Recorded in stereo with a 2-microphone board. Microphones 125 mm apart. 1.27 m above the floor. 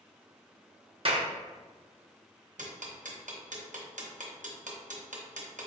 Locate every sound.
1.1 s a clap: 45° right (ahead or behind), 0.6 m
2.6 s ticking: 75° right (ahead or behind), 0.8 m